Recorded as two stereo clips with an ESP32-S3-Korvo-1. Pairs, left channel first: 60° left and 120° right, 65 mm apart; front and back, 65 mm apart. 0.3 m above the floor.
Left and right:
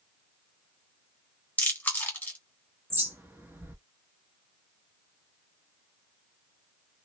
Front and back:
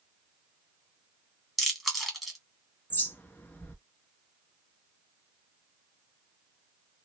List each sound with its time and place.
1.6 s chewing: 95° left, 1.1 m
2.9 s a bird: 65° right, 0.7 m